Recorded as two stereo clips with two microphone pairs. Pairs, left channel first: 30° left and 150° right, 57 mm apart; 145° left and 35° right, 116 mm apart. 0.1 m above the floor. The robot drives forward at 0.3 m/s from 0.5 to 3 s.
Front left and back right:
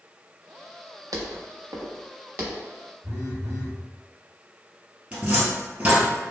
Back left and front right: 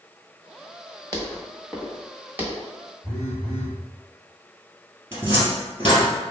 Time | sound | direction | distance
1.1 | footsteps | 145° right | 1.0 m
3.0 | a phone buzzing | 130° right | 1.8 m
5.1 | a cupboard door | 95° right | 1.3 m